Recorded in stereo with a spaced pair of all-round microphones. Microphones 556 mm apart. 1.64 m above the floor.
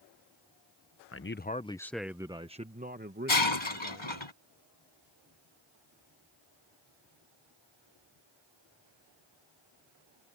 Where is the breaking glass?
55° left (ahead or behind).